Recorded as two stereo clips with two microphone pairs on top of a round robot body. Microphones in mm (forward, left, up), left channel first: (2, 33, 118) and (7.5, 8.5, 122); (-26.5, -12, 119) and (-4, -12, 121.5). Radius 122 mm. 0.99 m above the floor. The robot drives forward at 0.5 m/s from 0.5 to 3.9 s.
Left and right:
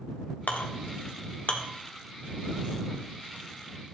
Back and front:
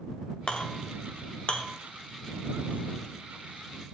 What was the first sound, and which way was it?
A clink, 125° left.